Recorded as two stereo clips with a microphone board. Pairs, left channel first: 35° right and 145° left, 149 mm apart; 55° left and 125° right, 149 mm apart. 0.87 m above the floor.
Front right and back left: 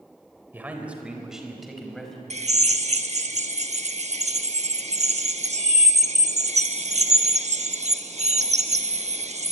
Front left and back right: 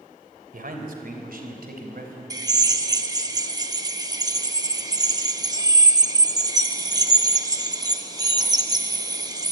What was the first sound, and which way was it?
A man speaking, 135° right.